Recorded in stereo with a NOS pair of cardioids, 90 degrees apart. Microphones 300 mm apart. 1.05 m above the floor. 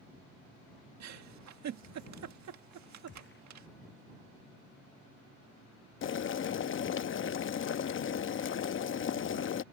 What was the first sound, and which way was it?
A giggle, 65° right.